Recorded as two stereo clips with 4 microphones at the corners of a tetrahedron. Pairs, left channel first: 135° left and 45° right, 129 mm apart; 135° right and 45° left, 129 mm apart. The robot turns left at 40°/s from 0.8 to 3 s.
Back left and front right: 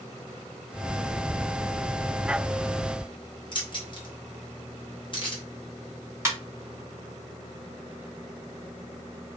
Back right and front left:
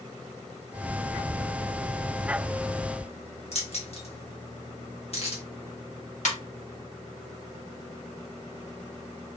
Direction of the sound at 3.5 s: 175° right.